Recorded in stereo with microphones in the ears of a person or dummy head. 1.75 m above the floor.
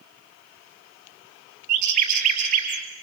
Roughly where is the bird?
Right.